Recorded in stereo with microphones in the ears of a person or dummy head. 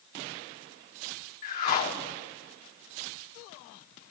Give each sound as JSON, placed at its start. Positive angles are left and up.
{"t": 1.4, "sound": "a whoosh", "side_deg": 45, "distance_m": 1.1}